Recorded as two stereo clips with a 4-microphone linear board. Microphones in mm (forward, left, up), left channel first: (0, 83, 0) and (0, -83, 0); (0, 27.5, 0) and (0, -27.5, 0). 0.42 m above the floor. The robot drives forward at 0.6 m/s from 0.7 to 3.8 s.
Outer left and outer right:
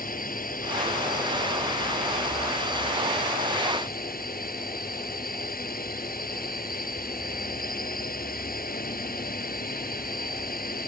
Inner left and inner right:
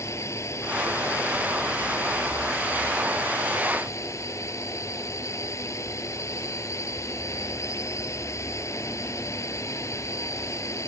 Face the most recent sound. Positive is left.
turn(degrees=60)  # may be behind; listen again after turning